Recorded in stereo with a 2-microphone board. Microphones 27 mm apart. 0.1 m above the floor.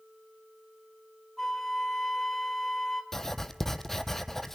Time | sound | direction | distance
1.4 | a flute | 10° left (ahead or behind) | 1.8 m
3.1 | writing | 10° left (ahead or behind) | 0.9 m